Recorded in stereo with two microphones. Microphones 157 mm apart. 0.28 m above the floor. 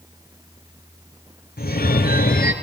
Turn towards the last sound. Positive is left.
turn(degrees=75)  # may be behind; listen again after turning